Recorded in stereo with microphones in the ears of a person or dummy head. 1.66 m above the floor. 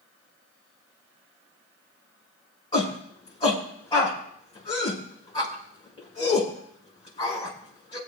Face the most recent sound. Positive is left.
turn(degrees=20)  # may be behind; listen again after turning